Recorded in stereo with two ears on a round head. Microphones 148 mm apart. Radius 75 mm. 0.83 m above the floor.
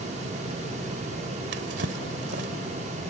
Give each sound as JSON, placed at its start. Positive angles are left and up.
{"t": 1.5, "sound": "a drawer", "side_deg": -70}